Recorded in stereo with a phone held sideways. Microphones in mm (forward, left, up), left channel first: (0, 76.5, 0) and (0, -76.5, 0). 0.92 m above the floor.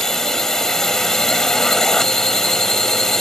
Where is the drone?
5° left (ahead or behind).